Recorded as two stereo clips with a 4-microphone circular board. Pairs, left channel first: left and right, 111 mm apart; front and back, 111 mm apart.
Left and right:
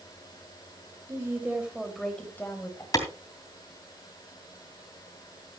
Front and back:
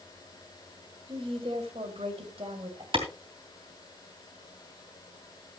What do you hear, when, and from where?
1.1 s a woman speaking: 150° right, 2.5 m; by 2.8 s 150° left, 3 m
2.9 s a clap: 145° left, 2.5 m